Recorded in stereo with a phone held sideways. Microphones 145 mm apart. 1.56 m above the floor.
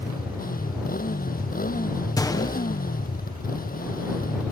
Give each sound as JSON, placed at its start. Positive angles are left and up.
{"t": 0.0, "sound": "a motorcycle", "side_deg": 80}
{"t": 2.2, "sound": "a gunshot", "side_deg": 25}